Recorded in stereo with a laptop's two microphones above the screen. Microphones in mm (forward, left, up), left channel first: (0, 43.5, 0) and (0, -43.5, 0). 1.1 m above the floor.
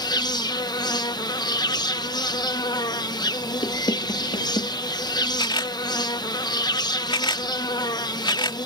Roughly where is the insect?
Left.